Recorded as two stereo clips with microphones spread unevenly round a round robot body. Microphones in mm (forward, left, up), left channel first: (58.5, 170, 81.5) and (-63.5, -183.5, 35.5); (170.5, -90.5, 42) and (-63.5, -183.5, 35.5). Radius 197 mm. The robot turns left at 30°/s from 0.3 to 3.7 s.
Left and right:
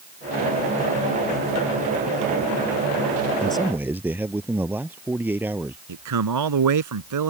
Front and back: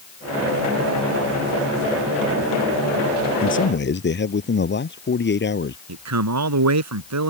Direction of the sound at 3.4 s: 15° right.